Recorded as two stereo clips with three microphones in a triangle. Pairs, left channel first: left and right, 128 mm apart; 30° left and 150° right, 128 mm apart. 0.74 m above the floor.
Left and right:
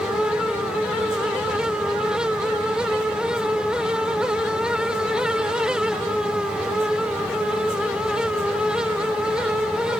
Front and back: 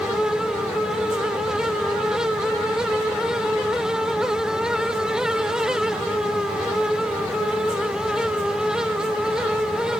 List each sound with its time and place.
Only background noise.